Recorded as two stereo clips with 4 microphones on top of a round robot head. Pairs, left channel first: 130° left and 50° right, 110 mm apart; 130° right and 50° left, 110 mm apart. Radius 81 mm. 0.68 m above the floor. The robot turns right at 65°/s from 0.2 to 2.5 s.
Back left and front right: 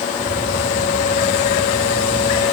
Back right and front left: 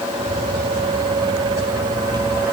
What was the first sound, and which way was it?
Only background noise.